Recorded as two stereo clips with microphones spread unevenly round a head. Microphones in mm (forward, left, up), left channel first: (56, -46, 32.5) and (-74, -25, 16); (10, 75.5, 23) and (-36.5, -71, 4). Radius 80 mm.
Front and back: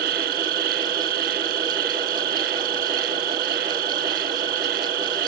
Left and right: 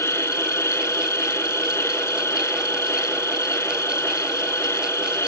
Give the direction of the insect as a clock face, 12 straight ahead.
7 o'clock.